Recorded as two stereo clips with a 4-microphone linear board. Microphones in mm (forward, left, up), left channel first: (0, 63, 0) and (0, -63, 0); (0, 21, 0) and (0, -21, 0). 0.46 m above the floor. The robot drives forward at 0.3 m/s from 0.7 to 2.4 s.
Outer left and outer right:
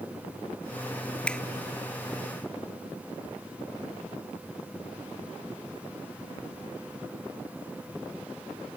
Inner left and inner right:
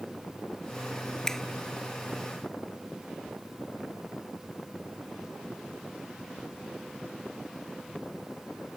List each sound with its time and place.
1.3 s a finger snap: 10° left (ahead or behind)